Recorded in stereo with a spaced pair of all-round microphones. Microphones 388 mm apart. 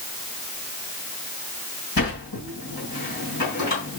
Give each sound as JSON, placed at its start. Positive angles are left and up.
{"t": 2.0, "sound": "a sliding door", "side_deg": 60, "distance_m": 3.0}